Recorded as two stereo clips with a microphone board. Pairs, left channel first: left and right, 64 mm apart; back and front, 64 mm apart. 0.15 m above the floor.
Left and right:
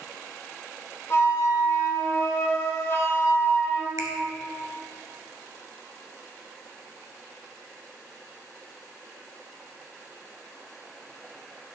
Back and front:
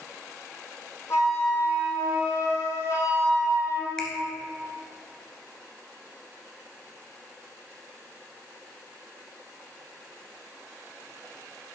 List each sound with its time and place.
1.1 s a flute: 140° left, 3 m
4.0 s a finger snap: 100° right, 1.5 m